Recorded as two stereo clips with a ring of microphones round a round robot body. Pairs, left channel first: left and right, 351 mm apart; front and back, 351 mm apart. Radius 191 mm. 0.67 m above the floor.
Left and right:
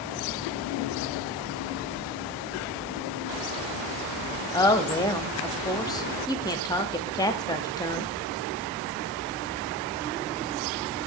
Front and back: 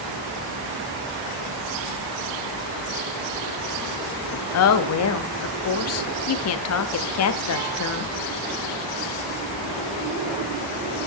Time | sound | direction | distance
4.5 | a woman speaking | 15° left | 0.6 m